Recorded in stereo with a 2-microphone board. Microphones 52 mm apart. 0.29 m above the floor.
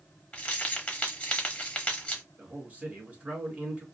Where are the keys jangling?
25° left (ahead or behind), 0.9 m.